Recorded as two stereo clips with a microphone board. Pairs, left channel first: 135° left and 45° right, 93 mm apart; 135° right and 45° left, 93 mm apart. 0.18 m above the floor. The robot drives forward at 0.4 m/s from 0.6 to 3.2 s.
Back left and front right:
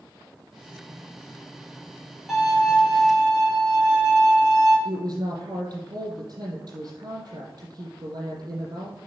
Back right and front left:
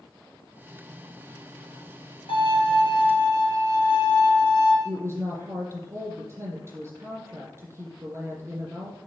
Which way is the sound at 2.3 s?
130° right.